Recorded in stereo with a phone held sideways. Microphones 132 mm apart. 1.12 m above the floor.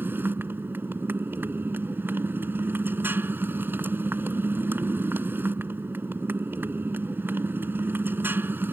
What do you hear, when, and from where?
0.0 s a motorcycle: 15° right (ahead or behind)